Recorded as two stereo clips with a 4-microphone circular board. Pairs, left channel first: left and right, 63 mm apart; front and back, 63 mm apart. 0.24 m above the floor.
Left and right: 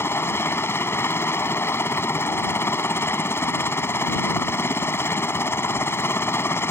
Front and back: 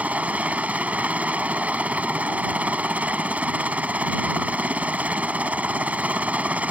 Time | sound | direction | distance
0.0 | a helicopter | 120° left | ?